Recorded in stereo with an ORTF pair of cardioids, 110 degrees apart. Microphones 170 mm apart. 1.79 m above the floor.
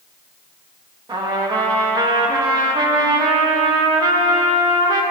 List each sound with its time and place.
1.1 s a trumpet: 25° right, 1.8 m